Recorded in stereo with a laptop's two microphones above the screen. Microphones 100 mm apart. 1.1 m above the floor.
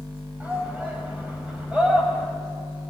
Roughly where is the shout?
Centre.